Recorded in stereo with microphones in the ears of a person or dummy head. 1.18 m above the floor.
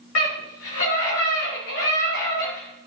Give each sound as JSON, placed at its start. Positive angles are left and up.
{"t": 0.1, "sound": "a scream", "side_deg": 75, "distance_m": 3.0}